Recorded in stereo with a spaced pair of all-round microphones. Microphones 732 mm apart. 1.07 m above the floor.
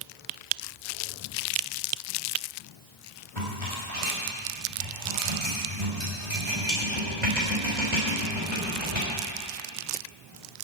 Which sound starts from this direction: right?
A rattle, at 3.4 s.